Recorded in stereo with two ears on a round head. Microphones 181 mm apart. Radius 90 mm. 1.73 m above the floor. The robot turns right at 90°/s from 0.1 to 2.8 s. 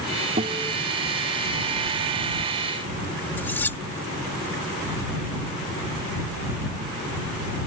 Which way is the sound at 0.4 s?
30° right.